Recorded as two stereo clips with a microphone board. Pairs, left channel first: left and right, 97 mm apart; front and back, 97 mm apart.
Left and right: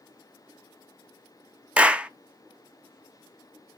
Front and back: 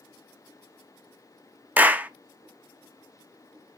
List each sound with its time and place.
1.8 s a clap: 145° right, 0.6 m